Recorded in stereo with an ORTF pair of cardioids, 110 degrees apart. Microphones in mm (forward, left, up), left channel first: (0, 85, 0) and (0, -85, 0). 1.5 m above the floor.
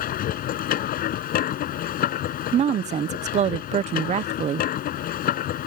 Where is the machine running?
65° left.